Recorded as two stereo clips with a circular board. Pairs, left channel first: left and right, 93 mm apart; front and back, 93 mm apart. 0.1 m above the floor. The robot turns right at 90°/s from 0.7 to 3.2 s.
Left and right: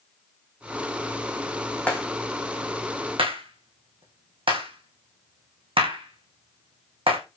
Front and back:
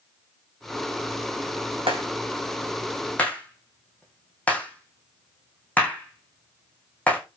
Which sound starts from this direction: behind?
A clap, at 1.9 s.